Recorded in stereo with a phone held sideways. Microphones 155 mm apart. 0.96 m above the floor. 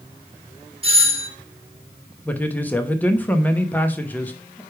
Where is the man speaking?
10° left (ahead or behind), 1.1 m.